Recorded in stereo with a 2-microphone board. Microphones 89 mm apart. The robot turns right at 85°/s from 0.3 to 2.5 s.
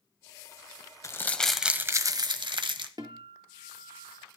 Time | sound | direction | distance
1.0 | crumpling | 140° left | 0.9 m
3.0 | a guitar | 55° right (ahead or behind) | 1.6 m